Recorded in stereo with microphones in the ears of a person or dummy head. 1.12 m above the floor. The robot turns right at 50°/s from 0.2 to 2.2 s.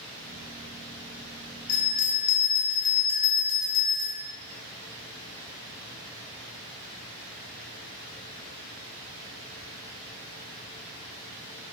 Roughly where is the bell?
Left.